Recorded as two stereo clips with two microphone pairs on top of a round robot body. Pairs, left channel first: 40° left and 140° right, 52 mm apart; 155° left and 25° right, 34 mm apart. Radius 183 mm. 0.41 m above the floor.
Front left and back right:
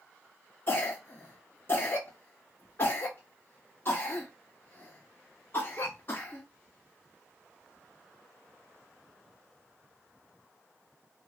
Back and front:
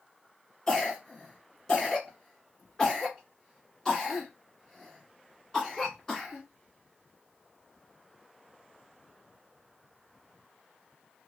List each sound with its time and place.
0.7 s a cough: 80° left, 2.5 m